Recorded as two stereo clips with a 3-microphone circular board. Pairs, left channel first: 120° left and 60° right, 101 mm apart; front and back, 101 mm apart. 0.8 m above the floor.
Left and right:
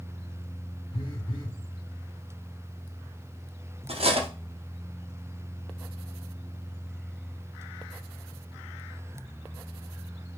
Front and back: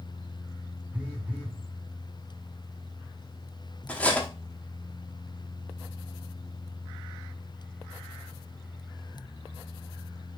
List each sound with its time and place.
0.9 s a phone buzzing: 105° left, 1.2 m
3.9 s cutlery clinking: 80° right, 0.7 m